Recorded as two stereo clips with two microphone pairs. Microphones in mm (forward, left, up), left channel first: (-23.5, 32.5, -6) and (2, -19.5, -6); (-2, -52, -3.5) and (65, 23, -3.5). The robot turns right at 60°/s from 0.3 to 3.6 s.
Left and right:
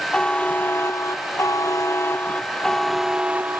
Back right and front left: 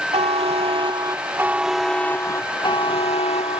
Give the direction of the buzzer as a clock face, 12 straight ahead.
10 o'clock.